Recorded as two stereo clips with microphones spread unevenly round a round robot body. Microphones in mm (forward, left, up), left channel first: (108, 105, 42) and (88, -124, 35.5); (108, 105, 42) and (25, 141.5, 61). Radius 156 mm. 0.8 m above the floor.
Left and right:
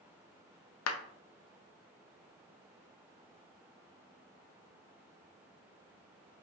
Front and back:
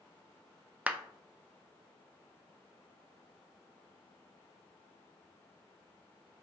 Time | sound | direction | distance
0.9 | a clap | 75° left | 0.6 m